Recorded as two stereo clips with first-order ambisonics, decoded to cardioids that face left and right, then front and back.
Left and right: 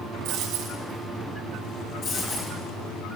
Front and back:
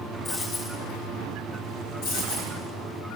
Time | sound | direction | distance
0.2 | a dropped coin | 60° right | 4.5 m
2.0 | a dropped coin | 35° left | 4.5 m